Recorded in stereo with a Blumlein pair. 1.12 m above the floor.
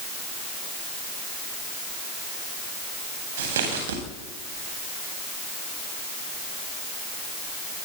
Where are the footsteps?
60° right, 9.5 m.